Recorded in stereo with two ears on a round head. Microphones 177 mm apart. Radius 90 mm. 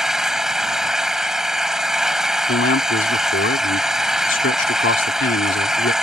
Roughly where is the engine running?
Centre.